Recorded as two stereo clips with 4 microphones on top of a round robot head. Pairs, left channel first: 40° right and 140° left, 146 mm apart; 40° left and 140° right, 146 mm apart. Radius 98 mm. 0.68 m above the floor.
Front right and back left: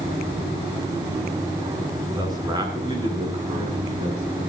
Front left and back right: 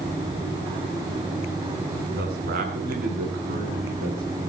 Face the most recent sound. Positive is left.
turn(degrees=-170)